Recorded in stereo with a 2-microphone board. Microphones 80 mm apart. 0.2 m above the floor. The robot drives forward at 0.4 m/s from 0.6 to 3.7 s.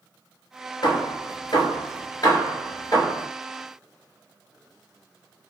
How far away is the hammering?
About 1.0 m.